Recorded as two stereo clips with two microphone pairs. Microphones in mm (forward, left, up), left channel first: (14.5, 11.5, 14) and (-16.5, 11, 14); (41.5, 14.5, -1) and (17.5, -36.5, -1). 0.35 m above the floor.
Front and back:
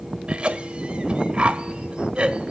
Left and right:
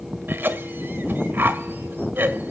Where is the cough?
150° right, 1.4 m.